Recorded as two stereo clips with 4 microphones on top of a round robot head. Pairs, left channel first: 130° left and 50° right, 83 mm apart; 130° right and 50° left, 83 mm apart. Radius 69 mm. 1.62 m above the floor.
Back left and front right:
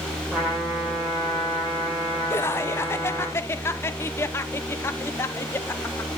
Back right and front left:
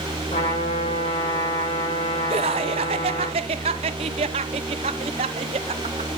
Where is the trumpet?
130° right, 7 m.